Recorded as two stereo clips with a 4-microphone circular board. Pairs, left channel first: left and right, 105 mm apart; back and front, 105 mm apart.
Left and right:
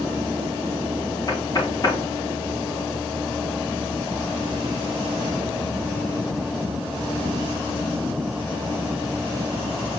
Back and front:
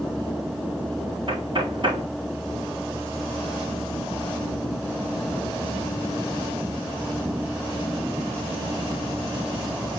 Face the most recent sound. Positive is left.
turn(degrees=40)